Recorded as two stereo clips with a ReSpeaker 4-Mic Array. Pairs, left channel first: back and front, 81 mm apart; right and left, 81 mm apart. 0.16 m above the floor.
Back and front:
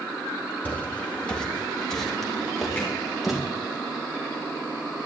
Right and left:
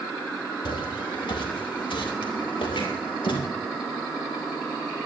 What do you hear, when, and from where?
0.7 s footsteps: 110° right, 3 m; by 3.4 s 85° right, 5.5 m
2.8 s hammering: 100° right, 7 m